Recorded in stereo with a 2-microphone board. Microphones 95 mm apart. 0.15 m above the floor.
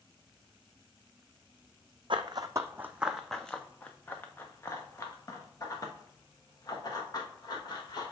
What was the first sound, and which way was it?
Running footsteps, 60° right (ahead or behind).